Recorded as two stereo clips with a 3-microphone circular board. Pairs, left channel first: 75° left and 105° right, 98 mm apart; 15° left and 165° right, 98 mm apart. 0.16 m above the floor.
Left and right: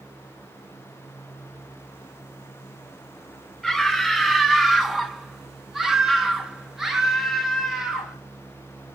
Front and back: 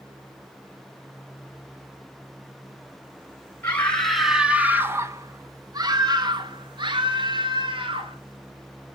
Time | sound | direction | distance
3.6 | a scream | 20° right | 1.0 m